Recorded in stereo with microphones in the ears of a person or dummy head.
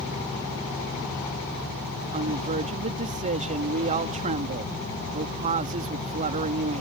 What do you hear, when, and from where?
2.1 s a woman speaking: 35° right (ahead or behind)